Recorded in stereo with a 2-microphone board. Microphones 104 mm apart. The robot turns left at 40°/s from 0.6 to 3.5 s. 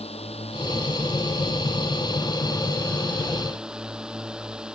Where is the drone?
110° left; by 4.8 s 5° right.